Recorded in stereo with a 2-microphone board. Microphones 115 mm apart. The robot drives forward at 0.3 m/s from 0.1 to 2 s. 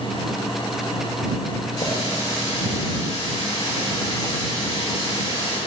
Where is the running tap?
70° left (ahead or behind), 4.5 m.